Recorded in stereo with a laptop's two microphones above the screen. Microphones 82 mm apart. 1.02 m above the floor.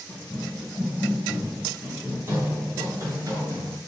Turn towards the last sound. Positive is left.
turn(degrees=-45)  # may be behind; listen again after turning